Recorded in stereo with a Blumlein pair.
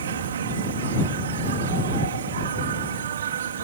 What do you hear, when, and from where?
0.0 s an insect: 65° right